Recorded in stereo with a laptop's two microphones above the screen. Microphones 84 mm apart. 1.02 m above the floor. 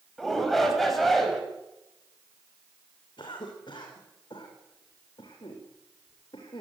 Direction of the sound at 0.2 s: Centre (ahead or behind).